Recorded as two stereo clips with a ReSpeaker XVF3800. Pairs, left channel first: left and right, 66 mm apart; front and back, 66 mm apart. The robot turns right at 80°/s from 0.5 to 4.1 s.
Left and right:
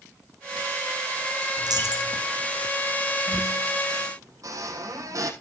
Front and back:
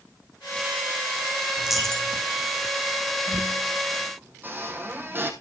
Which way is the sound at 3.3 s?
170° left.